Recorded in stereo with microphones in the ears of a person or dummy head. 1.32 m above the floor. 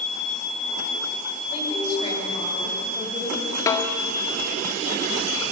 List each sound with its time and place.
1.5 s a woman speaking: 35° left (ahead or behind), 7.5 m; by 3.6 s 30° left (ahead or behind), 8.5 m
3.7 s a snare drum: 20° left (ahead or behind), 1.8 m